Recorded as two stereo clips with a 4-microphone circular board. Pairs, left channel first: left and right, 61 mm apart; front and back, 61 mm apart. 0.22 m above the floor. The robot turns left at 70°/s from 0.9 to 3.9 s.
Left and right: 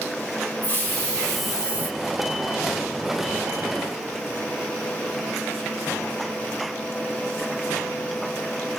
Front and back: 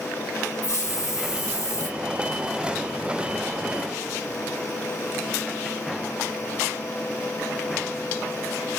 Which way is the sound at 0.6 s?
35° left.